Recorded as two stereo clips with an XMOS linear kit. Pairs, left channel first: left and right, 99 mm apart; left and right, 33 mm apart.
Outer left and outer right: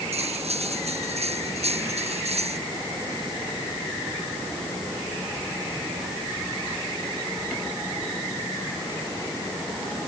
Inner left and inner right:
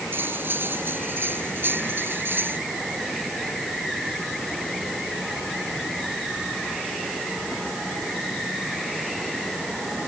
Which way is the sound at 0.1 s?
80° right.